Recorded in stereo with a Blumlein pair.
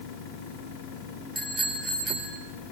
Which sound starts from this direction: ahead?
A bicycle bell, at 1.4 s.